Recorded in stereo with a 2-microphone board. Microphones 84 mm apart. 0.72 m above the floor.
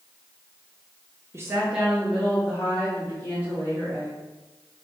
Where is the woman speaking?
30° right (ahead or behind), 0.6 m; by 4.2 s 20° left (ahead or behind), 3.5 m.